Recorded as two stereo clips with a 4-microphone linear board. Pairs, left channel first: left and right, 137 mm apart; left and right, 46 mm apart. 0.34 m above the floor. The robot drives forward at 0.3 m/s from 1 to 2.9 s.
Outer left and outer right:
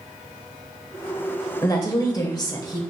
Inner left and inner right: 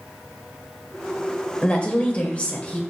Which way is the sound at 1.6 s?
30° left (ahead or behind).